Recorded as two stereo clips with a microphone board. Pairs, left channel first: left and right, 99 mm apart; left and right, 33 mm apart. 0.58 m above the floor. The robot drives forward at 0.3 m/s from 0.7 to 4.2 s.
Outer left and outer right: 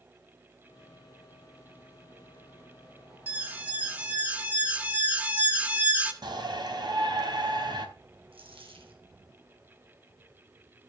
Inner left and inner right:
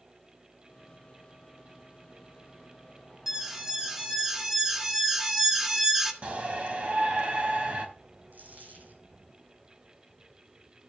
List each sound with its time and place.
3.3 s an alarm: 15° right (ahead or behind), 1.6 m
6.2 s a shout: 50° right (ahead or behind), 4 m
8.3 s a dropped coin: 70° right (ahead or behind), 3 m